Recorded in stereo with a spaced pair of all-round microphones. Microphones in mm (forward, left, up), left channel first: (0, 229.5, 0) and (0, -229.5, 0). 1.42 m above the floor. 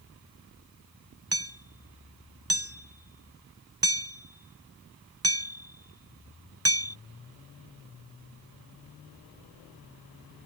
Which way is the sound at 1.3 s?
30° right (ahead or behind).